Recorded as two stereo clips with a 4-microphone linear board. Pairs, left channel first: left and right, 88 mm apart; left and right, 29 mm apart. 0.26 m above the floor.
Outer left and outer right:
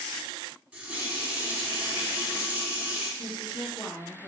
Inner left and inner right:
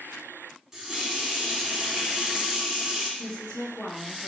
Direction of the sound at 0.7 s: 15° right (ahead or behind).